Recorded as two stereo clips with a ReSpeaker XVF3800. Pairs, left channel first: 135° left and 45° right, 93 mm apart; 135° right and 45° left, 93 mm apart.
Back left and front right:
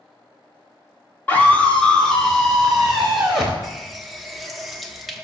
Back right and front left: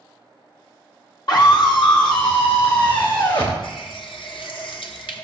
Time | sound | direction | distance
1.3 | a scream | 160° right | 2 m
3.6 | a running tap | 135° right | 0.8 m